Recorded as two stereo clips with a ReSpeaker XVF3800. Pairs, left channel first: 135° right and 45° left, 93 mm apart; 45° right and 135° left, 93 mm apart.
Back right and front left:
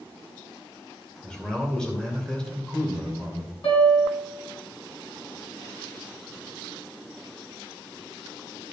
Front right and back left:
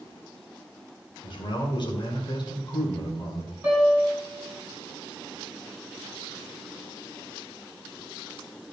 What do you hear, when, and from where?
1.2 s a man speaking: 55° right, 2.5 m
3.6 s a piano: 160° right, 4 m